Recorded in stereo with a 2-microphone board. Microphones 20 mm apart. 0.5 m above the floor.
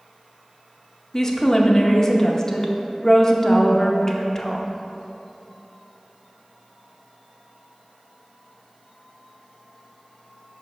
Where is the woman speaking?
25° left (ahead or behind), 0.7 m.